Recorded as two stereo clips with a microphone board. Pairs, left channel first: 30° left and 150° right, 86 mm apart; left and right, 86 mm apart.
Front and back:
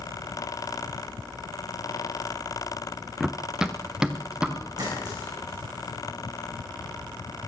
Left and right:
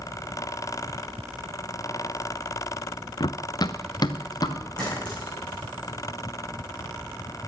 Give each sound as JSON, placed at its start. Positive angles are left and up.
{"t": 3.2, "sound": "running footsteps", "azimuth_deg": 125, "distance_m": 0.6}
{"t": 4.8, "sound": "a clink", "azimuth_deg": 165, "distance_m": 7.5}